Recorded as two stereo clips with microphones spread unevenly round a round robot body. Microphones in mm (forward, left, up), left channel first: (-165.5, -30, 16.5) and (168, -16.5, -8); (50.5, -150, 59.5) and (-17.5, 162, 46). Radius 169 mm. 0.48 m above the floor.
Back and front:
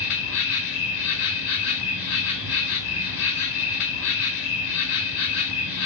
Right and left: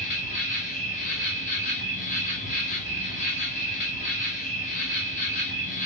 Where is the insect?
145° right, 1.1 m.